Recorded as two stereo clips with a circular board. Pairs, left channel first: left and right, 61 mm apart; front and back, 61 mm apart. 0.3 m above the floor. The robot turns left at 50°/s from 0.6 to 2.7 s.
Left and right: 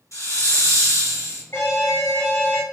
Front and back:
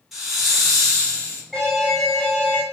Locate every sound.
0.1 s a hiss: 95° left, 2.5 m; by 1.4 s 55° left, 2.5 m
1.5 s an alarm: 90° left, 2 m; by 2.6 s 35° left, 2 m